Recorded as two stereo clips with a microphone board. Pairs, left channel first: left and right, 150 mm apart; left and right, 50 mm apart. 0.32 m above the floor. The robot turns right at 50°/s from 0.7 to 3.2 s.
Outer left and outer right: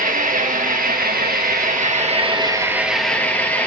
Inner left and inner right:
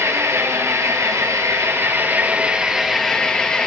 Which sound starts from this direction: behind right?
An engine running, at 0.0 s.